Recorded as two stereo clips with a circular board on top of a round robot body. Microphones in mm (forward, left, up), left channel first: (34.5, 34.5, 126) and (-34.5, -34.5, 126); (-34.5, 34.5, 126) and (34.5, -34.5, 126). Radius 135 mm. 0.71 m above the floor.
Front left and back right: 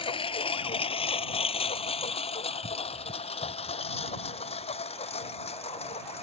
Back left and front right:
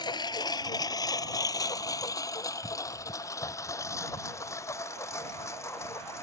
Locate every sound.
0.0 s a lawn mower: 85° left; by 6.2 s 70° left